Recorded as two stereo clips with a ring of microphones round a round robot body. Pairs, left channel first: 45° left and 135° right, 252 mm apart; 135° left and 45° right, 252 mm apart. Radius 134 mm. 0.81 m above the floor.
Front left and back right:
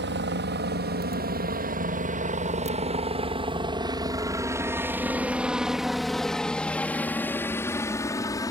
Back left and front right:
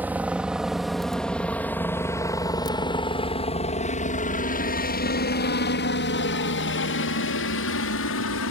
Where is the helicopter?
125° right; by 8.5 s 120° left.